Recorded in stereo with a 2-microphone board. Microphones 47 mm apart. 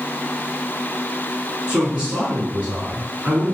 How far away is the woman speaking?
About 1.8 m.